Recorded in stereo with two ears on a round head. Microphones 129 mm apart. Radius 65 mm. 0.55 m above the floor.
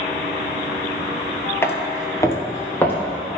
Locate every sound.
1.6 s footsteps: 20° left (ahead or behind), 0.6 m; by 2.9 s 15° left (ahead or behind), 1.1 m